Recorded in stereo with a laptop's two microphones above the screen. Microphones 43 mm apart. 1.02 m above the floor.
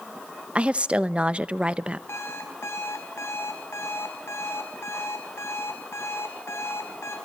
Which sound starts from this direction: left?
An alarm clock, at 2.1 s.